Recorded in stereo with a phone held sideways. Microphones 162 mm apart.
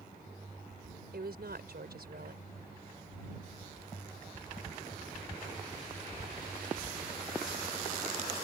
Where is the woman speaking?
80° right.